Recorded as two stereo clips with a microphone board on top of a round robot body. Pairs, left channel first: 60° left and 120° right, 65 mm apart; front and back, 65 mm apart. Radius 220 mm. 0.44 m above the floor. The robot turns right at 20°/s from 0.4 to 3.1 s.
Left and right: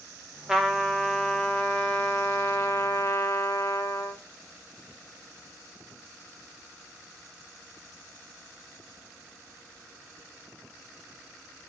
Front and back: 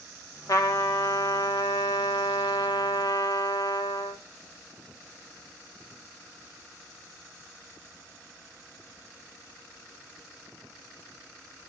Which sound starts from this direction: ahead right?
A trumpet, at 0.5 s.